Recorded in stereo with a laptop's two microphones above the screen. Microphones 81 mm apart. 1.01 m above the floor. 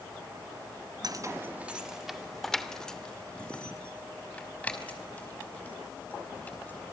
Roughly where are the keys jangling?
Right.